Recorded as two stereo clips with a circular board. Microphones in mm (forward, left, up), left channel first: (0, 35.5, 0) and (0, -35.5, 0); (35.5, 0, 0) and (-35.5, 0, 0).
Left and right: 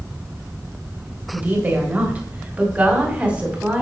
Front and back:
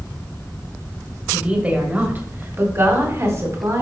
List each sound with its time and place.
1.3 s a woman speaking: 120° right, 1.7 m; by 3.8 s 160° right, 2.5 m